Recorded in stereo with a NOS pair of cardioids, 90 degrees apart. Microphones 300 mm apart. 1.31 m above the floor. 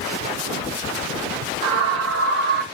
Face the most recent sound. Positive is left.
turn(degrees=-30)